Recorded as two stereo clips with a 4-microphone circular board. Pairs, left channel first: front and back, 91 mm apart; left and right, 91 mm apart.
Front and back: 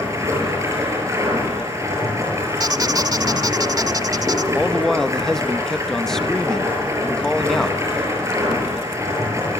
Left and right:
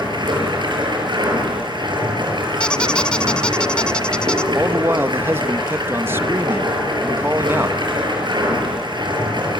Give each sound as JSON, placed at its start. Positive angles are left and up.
{"t": 0.0, "sound": "running water", "azimuth_deg": -125, "distance_m": 7.5}
{"t": 2.6, "sound": "a squeak", "azimuth_deg": 165, "distance_m": 0.9}
{"t": 4.5, "sound": "a man speaking", "azimuth_deg": -80, "distance_m": 0.8}